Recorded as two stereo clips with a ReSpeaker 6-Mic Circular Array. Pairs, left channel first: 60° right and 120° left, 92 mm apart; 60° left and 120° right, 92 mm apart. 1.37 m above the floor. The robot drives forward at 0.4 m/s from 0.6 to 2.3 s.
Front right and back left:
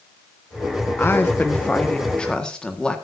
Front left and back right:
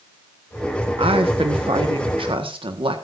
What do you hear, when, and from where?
1.0 s a woman speaking: 125° right, 1.3 m; by 3.0 s 140° right, 1.6 m